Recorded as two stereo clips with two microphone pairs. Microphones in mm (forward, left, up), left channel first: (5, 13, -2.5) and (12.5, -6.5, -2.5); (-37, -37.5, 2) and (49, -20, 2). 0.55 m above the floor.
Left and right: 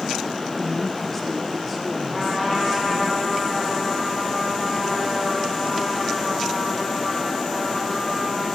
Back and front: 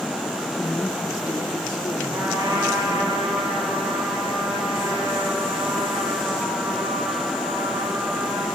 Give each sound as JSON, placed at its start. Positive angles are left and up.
{"t": 0.6, "sound": "a woman speaking", "azimuth_deg": 150, "distance_m": 0.7}
{"t": 2.1, "sound": "a trumpet", "azimuth_deg": 40, "distance_m": 4.5}